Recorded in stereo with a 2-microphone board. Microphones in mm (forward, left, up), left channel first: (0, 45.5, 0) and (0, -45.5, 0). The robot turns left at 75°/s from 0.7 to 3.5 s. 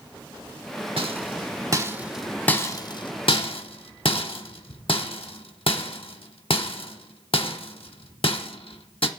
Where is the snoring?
No snoring in this recording.